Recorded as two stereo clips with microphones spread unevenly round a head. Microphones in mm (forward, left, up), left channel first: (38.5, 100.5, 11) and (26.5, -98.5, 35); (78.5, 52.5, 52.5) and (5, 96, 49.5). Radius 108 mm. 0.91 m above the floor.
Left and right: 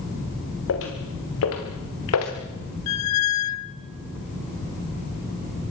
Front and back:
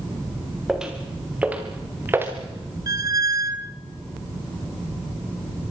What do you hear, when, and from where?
0.7 s footsteps: 65° left, 5.5 m; by 2.3 s 90° left, 5 m
2.9 s a squeak: 105° left, 0.9 m